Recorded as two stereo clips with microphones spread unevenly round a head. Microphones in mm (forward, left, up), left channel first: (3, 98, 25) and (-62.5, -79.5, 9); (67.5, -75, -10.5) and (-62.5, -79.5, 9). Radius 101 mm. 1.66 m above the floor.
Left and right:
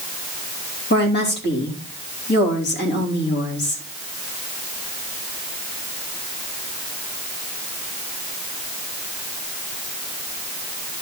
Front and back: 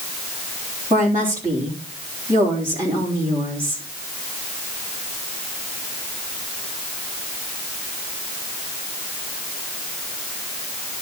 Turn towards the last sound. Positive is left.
turn(degrees=105)